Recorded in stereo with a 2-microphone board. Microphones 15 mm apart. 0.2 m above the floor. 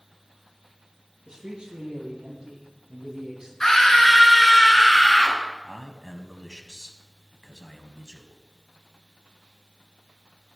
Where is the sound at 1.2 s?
45° right (ahead or behind), 5.5 m; by 3.5 s 30° right (ahead or behind), 6 m.